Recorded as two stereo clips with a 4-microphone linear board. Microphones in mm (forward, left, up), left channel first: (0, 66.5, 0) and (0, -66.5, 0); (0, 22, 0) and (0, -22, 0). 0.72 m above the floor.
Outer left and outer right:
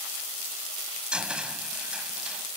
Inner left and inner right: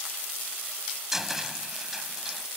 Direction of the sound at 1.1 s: 5° right (ahead or behind).